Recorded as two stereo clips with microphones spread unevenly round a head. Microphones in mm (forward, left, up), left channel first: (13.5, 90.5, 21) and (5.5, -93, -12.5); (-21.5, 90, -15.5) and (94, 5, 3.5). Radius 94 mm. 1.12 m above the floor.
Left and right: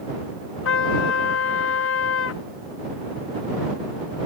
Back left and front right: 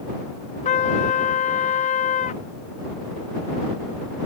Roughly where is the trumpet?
Left.